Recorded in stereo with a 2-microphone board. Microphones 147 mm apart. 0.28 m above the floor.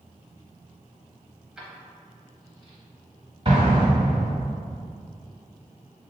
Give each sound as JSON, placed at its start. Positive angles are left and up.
{"t": 1.6, "sound": "keys jangling", "side_deg": -5, "distance_m": 0.8}
{"t": 3.5, "sound": "an explosion", "side_deg": -35, "distance_m": 1.4}